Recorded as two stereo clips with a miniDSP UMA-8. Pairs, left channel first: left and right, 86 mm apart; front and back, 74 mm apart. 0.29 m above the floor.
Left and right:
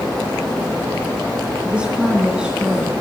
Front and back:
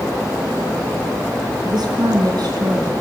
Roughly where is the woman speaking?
Behind.